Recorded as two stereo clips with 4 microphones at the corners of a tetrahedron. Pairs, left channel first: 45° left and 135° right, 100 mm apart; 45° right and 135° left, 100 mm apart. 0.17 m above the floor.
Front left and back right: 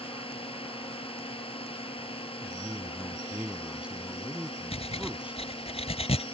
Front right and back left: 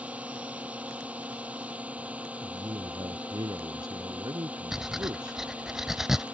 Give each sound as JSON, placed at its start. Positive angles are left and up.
{"t": 0.0, "sound": "a drone", "azimuth_deg": 60}
{"t": 2.4, "sound": "a man speaking", "azimuth_deg": 150}
{"t": 4.7, "sound": "breathing", "azimuth_deg": 50}